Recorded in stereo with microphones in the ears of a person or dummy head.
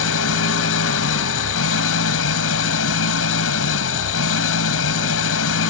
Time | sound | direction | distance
0.0 | an engine running | 75° left (ahead or behind) | ?